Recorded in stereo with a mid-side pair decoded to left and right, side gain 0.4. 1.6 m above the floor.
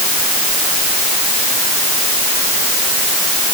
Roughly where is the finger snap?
No finger snap in this recording.